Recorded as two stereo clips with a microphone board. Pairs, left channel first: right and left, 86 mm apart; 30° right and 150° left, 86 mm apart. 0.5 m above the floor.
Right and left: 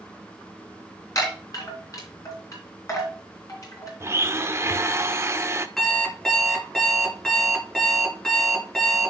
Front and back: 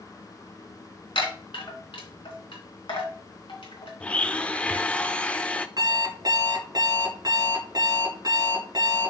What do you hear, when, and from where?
1.1 s a chime: 40° right, 3 m
4.0 s a blender: 40° left, 0.6 m
5.8 s an alarm clock: 175° right, 2.5 m